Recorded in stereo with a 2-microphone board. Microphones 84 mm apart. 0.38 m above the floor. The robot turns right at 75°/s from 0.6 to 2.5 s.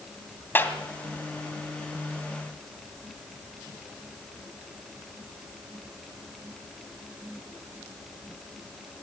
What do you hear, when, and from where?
0.6 s a clap: 25° left (ahead or behind), 2.5 m; by 0.8 s 15° left (ahead or behind), 2.5 m